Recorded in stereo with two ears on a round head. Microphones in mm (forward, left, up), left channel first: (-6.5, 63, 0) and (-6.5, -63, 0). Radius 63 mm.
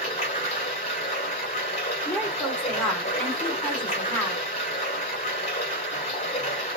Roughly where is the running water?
Left.